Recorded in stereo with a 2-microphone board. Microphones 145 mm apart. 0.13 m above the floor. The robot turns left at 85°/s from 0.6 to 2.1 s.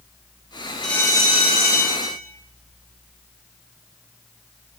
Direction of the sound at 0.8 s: 175° left.